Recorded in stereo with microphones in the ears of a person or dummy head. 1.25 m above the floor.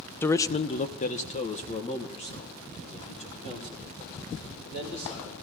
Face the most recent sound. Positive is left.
turn(degrees=25)  # may be behind; listen again after turning